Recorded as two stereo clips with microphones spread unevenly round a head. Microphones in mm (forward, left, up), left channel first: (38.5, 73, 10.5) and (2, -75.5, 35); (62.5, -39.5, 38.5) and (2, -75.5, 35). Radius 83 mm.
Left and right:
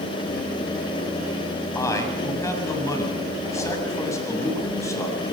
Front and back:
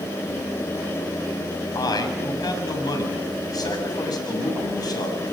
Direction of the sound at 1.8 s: 5° left.